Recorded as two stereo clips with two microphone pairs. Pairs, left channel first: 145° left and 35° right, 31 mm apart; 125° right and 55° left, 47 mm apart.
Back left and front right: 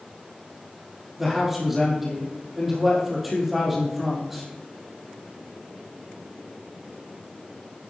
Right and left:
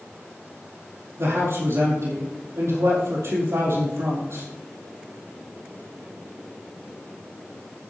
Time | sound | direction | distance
1.2 | a man speaking | 50° left | 5 m